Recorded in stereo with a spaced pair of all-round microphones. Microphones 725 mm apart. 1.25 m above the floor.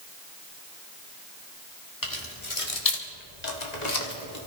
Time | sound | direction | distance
2.0 | keys jangling | 30° left (ahead or behind) | 1.9 m